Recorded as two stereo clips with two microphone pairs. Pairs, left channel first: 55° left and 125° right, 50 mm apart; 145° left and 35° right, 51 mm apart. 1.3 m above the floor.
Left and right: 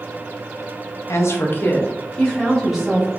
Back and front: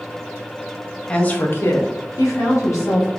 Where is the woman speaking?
75° left, 0.7 m; by 3.1 s 155° left, 1.2 m.